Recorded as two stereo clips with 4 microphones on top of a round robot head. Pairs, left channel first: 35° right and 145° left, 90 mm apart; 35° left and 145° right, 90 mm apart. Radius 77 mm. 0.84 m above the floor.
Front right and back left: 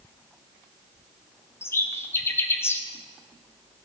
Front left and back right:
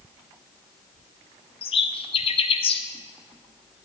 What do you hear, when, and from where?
1.6 s a bird: 25° left, 0.7 m